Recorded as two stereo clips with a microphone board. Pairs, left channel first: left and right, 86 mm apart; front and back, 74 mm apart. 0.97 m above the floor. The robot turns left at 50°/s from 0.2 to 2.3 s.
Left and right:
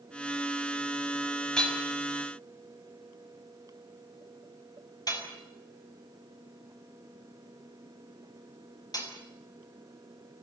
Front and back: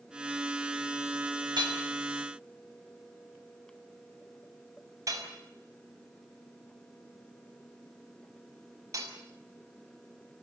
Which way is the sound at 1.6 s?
175° left.